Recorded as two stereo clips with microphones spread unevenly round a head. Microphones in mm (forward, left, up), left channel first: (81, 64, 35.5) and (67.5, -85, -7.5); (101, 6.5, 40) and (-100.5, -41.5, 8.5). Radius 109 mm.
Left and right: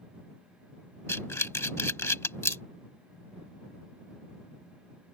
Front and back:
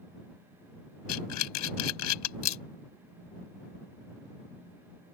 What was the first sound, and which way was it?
Breathing, 15° left.